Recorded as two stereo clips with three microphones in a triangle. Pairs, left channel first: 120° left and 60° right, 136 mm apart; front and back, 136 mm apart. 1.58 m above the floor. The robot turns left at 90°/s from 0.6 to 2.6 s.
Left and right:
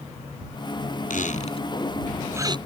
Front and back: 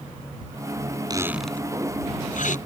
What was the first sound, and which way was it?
A squeak, 125° left.